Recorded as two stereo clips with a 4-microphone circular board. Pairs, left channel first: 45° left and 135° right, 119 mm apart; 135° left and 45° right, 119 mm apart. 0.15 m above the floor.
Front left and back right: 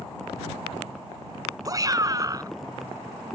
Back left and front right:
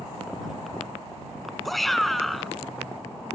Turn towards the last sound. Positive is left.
turn(degrees=-140)